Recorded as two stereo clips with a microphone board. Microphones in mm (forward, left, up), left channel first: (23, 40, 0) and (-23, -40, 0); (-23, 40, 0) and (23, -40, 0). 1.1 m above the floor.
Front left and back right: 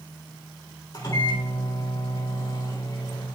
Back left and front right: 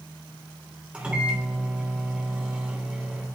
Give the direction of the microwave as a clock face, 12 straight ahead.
11 o'clock.